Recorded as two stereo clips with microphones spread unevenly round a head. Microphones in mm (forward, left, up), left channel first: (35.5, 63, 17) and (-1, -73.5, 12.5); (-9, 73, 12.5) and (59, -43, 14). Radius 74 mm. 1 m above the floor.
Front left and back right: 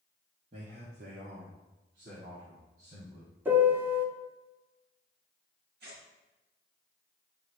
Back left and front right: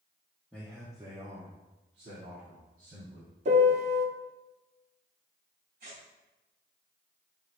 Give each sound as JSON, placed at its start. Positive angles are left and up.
{"t": 0.5, "sound": "a man speaking", "azimuth_deg": -150, "distance_m": 1.4}
{"t": 3.5, "sound": "a piano", "azimuth_deg": -30, "distance_m": 0.8}
{"t": 5.8, "sound": "tearing paper", "azimuth_deg": -90, "distance_m": 3.0}